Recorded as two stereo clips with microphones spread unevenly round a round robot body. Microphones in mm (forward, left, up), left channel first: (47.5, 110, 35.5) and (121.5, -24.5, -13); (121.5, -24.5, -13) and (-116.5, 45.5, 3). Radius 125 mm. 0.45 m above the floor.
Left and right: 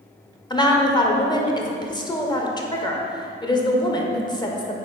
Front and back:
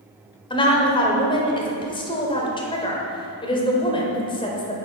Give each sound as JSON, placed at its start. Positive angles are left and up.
{"t": 0.5, "sound": "a woman speaking", "azimuth_deg": 50, "distance_m": 1.4}